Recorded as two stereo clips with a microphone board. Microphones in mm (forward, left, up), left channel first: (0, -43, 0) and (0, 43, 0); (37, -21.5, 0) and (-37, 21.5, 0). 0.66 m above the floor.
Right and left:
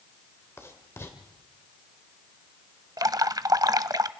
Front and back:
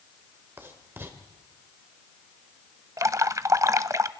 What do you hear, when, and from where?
0.6 s writing: 150° right, 2.5 m
3.0 s dripping: 115° left, 0.6 m